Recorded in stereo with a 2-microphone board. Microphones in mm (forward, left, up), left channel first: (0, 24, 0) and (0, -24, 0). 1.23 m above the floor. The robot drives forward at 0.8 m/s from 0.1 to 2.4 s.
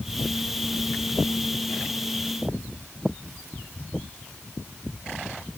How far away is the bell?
I don't hear a bell.